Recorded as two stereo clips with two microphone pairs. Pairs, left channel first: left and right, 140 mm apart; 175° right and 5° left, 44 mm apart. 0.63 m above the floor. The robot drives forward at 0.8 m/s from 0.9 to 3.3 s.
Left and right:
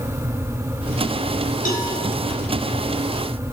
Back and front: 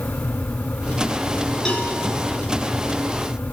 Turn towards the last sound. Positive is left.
turn(degrees=120)